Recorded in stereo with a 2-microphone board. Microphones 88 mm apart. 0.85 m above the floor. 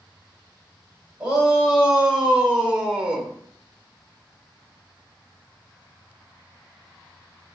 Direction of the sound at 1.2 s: 10° right (ahead or behind).